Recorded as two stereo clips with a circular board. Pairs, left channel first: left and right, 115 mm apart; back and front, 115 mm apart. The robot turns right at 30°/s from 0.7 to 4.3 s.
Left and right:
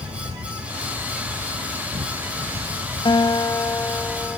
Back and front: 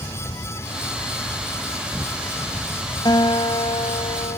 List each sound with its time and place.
0.0 s an insect: 120° right; by 4.4 s 15° right
3.0 s a guitar: 130° left; by 4.4 s 170° left